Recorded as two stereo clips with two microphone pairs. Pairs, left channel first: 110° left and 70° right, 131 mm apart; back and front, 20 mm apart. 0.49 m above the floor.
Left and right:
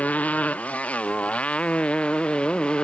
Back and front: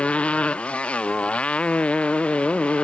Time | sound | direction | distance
0.0 | a motorcycle | 170° right | ?